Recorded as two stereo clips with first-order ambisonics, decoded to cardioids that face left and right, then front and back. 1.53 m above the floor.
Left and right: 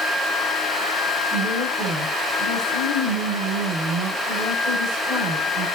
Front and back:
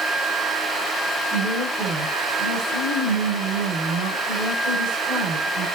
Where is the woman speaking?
135° right, 5.5 m.